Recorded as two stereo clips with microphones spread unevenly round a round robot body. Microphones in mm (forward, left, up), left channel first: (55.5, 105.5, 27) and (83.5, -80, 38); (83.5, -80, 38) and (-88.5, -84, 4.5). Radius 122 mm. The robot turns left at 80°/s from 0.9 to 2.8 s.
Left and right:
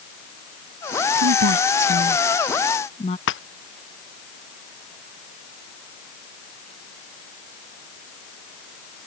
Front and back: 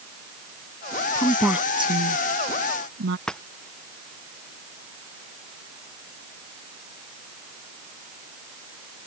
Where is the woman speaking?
65° right; by 3.2 s 165° left.